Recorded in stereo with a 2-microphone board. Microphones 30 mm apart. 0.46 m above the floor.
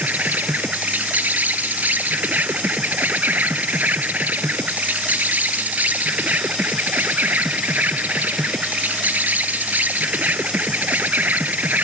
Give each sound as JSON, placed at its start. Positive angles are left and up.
{"t": 0.0, "sound": "an insect", "side_deg": -80}